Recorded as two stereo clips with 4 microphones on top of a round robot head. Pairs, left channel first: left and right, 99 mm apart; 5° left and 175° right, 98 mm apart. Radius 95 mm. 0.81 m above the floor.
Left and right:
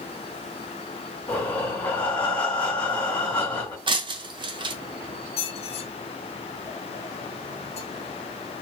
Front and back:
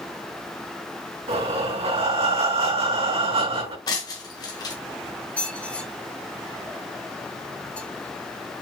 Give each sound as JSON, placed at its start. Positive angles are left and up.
{"t": 1.3, "sound": "breathing", "azimuth_deg": 170, "distance_m": 3.0}
{"t": 3.9, "sound": "breaking glass", "azimuth_deg": -50, "distance_m": 1.5}
{"t": 5.4, "sound": "a squeak", "azimuth_deg": 85, "distance_m": 1.3}